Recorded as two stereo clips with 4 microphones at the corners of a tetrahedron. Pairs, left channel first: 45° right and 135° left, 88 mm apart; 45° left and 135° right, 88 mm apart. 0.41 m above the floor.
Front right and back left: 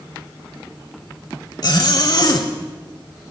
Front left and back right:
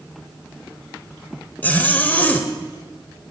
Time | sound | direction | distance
1.6 | a zipper | 20° right | 1.3 m